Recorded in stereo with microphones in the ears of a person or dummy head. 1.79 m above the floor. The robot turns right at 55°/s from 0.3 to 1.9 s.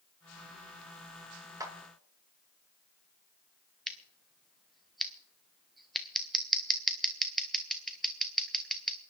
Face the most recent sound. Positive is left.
turn(degrees=-5)  # may be behind; listen again after turning